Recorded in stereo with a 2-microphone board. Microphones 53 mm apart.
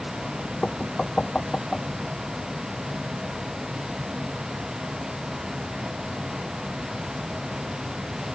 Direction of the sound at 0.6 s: 15° left (ahead or behind).